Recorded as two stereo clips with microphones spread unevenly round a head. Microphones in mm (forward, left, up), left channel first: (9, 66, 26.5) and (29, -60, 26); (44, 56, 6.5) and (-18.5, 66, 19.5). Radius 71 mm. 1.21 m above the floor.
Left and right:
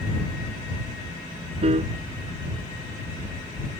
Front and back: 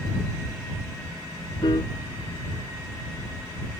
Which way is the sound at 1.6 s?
40° right.